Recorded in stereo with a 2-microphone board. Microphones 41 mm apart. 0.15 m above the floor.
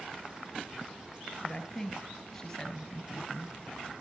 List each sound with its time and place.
1.4 s a woman speaking: 30° left (ahead or behind), 2.5 m